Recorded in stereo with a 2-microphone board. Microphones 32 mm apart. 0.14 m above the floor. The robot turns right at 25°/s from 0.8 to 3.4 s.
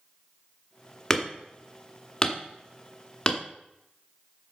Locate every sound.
1.1 s hammering: 15° left (ahead or behind), 1.1 m; by 3.4 s 30° left (ahead or behind), 1.1 m